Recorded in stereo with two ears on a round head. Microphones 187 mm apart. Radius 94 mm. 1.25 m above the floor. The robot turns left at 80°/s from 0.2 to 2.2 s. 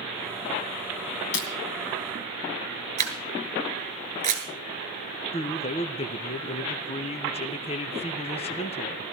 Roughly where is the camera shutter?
Right.